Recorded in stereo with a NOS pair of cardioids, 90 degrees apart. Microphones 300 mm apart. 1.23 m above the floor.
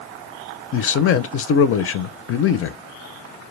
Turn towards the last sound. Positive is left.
turn(degrees=45)